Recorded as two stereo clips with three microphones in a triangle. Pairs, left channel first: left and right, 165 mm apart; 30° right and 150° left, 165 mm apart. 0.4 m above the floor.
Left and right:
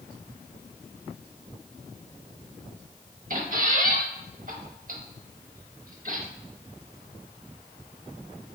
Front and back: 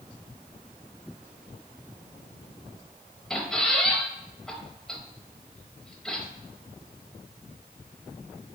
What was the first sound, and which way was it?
A squeak, 115° right.